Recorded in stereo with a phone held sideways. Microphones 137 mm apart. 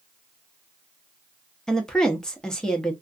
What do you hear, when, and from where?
1.7 s a woman speaking: 5° left (ahead or behind), 0.9 m